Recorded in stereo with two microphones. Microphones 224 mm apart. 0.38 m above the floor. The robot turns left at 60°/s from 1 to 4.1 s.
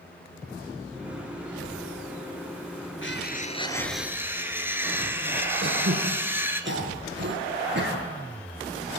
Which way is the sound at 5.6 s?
50° right (ahead or behind).